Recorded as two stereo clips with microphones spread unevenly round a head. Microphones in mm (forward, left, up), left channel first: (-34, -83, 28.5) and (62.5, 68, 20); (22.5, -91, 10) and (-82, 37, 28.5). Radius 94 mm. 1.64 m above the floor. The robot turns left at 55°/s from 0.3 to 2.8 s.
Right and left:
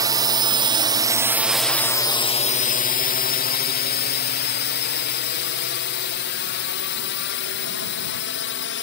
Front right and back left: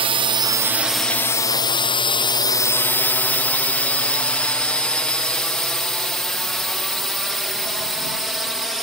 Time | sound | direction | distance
0.0 | a drone | 95° left | ?